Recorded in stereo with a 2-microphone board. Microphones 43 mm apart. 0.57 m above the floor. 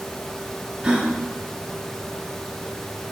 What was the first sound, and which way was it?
A gasp, 20° right (ahead or behind).